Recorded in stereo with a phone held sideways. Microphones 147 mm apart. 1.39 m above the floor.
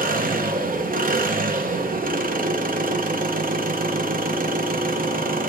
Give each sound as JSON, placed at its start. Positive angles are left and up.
{"t": 0.0, "sound": "an engine running", "side_deg": -75, "distance_m": 0.9}